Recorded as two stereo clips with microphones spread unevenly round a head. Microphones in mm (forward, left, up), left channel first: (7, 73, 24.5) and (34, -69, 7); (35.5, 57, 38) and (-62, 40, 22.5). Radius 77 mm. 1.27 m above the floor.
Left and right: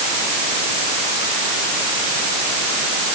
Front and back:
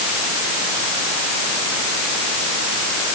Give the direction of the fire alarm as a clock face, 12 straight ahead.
I don't hear a fire alarm.